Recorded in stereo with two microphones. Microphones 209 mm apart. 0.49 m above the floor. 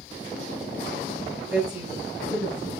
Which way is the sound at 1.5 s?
10° right (ahead or behind).